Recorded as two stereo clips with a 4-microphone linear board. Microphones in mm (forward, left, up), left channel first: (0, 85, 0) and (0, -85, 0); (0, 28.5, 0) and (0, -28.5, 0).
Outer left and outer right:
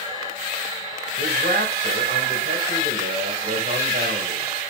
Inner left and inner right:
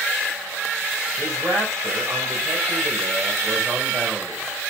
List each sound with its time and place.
1.2 s a man speaking: 75° right (ahead or behind), 4 m